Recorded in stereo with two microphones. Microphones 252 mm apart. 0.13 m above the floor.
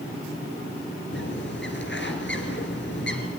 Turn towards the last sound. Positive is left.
turn(degrees=50)  # may be behind; listen again after turning